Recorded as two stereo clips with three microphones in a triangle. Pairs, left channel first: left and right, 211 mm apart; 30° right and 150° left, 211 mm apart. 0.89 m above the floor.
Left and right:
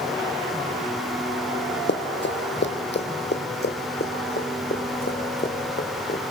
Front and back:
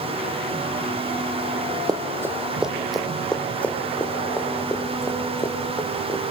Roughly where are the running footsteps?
Left.